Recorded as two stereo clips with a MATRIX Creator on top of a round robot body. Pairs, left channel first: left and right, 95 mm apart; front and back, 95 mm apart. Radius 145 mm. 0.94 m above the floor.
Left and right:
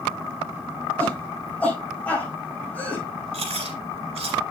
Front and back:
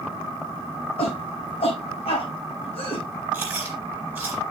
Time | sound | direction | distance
1.0 | a shout | 15° left | 5.5 m
3.3 | chewing | 105° right | 2.5 m